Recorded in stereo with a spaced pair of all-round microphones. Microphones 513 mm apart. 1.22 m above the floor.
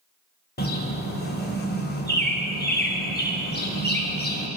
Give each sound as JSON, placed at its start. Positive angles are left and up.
{"t": 0.6, "sound": "a bird", "side_deg": 20, "distance_m": 1.1}